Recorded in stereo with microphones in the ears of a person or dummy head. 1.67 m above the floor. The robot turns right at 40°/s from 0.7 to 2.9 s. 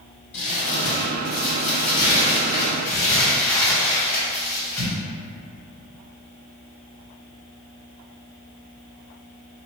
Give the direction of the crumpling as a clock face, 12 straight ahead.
9 o'clock.